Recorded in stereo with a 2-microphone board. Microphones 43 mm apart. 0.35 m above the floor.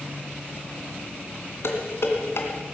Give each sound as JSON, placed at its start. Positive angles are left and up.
{"t": 1.6, "sound": "dishes clattering", "side_deg": 70, "distance_m": 2.5}